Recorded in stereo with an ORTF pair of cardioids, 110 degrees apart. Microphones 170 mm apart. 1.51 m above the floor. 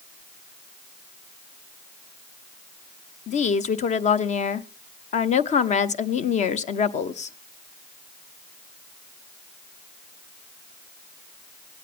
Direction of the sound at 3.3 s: 45° left.